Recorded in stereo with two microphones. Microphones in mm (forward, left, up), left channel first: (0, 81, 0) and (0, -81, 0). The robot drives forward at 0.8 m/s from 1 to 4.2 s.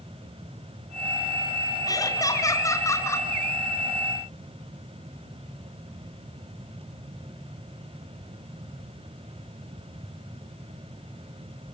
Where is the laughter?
20° left (ahead or behind), 3 m; by 3.3 s 15° left (ahead or behind), 4 m.